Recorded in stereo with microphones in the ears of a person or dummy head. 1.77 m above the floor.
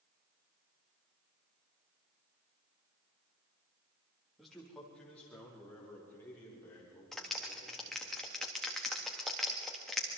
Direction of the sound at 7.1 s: 5° left (ahead or behind).